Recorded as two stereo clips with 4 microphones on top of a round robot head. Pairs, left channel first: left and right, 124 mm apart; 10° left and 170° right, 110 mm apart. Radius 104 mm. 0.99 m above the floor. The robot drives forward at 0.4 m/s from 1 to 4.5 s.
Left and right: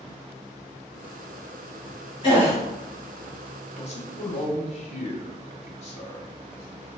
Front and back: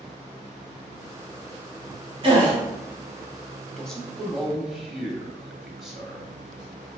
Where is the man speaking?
95° left, 1.6 m; by 6.3 s 105° left, 1.6 m.